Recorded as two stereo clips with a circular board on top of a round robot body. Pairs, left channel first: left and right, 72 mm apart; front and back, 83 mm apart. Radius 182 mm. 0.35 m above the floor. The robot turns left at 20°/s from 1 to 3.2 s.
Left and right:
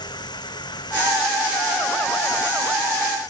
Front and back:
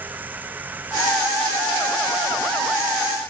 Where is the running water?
110° left; by 3.3 s 65° left.